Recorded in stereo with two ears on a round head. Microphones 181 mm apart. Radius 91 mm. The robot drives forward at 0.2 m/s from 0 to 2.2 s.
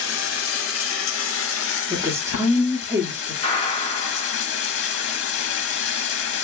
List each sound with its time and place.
0.0 s running water: 70° left (ahead or behind), 0.8 m; by 6.4 s 65° left (ahead or behind), 0.9 m
1.9 s a woman speaking: 15° right (ahead or behind), 0.9 m; by 3.3 s 10° right (ahead or behind), 0.9 m
3.4 s a gunshot: 25° left (ahead or behind), 1.2 m